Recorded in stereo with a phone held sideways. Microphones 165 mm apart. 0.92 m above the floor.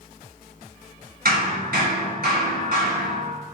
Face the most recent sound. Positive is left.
turn(degrees=-70)  # may be behind; listen again after turning